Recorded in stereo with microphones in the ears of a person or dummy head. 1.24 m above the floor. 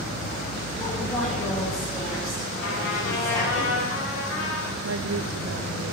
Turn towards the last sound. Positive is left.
turn(degrees=-80)